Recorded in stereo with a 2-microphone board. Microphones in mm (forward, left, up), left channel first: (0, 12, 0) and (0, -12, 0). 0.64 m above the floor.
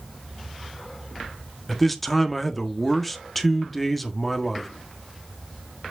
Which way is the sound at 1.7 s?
5° left (ahead or behind).